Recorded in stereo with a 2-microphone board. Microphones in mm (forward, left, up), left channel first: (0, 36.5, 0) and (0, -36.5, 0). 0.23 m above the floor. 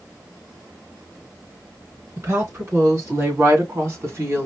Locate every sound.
2.2 s a woman speaking: 40° right (ahead or behind), 2.5 m; by 4.5 s 35° right (ahead or behind), 1.9 m